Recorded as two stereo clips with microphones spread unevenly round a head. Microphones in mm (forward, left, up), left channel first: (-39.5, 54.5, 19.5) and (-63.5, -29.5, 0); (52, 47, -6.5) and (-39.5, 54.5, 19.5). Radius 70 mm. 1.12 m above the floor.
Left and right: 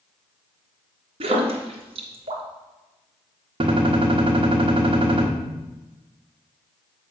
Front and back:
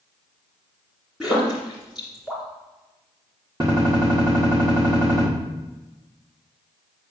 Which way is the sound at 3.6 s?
125° right.